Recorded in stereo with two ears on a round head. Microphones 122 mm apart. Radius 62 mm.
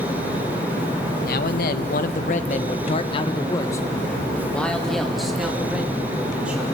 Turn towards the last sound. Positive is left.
turn(degrees=-10)  # may be behind; listen again after turning